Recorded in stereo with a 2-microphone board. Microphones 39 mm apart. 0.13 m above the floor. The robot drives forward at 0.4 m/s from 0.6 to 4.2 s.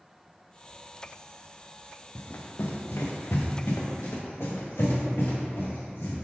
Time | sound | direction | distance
2.1 | running footsteps | 55° left (ahead or behind) | 1.2 m